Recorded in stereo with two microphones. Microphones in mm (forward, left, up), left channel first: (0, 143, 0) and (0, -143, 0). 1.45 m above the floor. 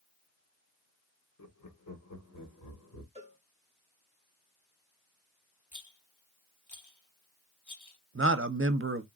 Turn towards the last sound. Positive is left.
turn(degrees=-45)  # may be behind; listen again after turning